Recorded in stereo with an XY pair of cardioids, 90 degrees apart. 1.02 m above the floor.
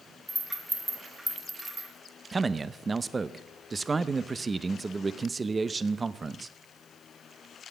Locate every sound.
0.3 s a rattle: 25° right, 3.5 m
2.3 s a man speaking: 35° right, 0.5 m